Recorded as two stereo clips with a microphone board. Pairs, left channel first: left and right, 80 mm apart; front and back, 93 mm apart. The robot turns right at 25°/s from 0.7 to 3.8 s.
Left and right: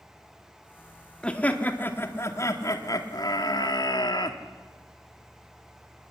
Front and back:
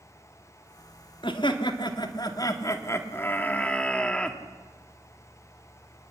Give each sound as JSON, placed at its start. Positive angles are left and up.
{"t": 1.2, "sound": "laughter", "azimuth_deg": 15, "distance_m": 1.9}